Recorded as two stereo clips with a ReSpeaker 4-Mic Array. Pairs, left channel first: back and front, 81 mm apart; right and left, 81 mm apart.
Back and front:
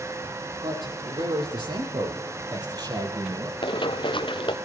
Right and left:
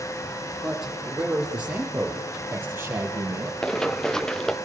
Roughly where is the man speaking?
Ahead.